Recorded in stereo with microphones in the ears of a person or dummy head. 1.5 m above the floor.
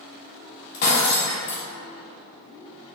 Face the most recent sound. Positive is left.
turn(degrees=55)  # may be behind; listen again after turning